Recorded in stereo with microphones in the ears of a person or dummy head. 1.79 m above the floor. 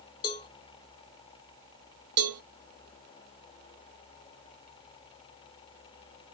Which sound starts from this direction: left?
A cowbell, at 0.2 s.